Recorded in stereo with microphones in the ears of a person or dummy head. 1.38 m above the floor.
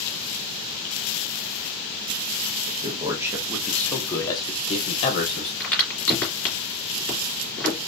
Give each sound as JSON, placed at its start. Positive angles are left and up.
{"t": 2.7, "sound": "a man speaking", "side_deg": -40, "distance_m": 0.9}
{"t": 5.6, "sound": "a crack", "side_deg": 5, "distance_m": 2.5}